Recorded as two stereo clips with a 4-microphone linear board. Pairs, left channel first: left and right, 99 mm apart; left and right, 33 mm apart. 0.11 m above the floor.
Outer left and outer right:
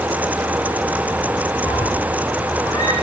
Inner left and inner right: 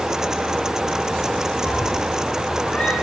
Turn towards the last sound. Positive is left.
turn(degrees=40)  # may be behind; listen again after turning